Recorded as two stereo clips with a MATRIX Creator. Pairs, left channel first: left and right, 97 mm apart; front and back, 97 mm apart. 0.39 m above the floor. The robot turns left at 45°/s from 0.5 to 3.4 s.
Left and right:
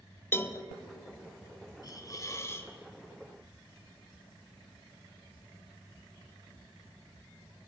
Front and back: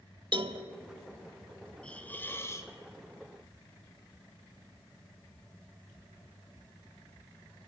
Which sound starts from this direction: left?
A hiss, at 1.8 s.